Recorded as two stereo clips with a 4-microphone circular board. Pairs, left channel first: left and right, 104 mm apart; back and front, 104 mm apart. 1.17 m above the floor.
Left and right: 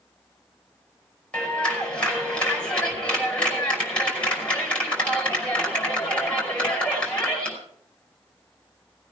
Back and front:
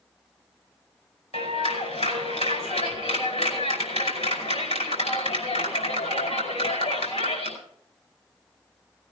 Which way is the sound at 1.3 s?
170° left.